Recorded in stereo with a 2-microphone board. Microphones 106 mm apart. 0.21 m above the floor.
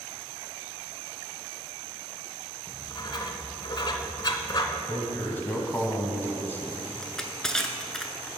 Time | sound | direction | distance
2.7 | writing | 40° left (ahead or behind) | 0.6 m
4.9 | a man speaking | 20° left (ahead or behind) | 1.2 m
7.0 | crushing | 5° left (ahead or behind) | 0.6 m